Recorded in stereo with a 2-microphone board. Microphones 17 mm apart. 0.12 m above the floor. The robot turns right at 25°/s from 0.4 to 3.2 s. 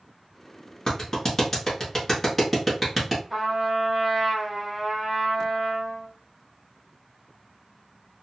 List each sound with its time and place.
0.9 s a clap: 25° left (ahead or behind), 1.3 m; by 3.2 s 5° right (ahead or behind), 1.3 m
3.3 s a trumpet: 15° right (ahead or behind), 2 m